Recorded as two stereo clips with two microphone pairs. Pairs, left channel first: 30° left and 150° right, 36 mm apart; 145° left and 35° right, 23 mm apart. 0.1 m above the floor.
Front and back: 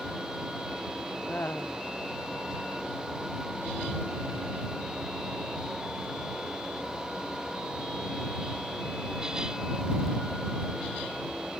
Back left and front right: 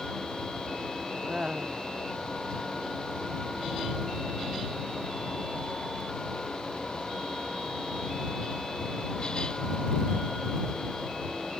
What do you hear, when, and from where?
1.3 s laughter: 20° left